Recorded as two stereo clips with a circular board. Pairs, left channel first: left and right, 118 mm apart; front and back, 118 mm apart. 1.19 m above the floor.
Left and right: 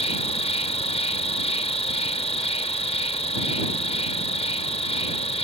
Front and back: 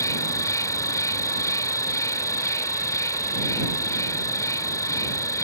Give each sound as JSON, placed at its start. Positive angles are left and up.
{"t": 0.0, "sound": "an insect", "azimuth_deg": 60}